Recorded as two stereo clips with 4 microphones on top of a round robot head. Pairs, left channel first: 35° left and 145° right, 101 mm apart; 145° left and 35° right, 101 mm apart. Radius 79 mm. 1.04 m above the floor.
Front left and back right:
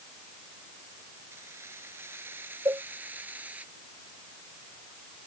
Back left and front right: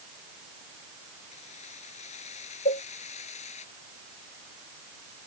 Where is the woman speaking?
No woman speaking in this recording.